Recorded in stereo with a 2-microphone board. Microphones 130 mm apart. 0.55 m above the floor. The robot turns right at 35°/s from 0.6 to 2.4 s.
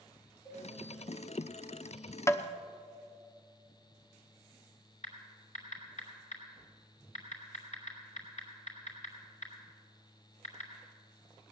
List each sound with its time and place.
0.5 s a cowbell: 40° left (ahead or behind), 5 m
2.3 s tapping: 20° left (ahead or behind), 0.7 m
5.0 s typing on a keyboard: 65° left (ahead or behind), 3.5 m